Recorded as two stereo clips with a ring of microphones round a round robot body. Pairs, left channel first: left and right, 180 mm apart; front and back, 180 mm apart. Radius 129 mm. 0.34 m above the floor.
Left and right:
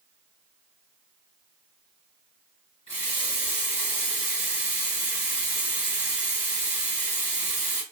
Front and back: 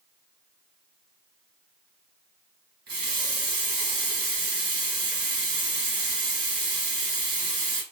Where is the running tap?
155° left, 2 m.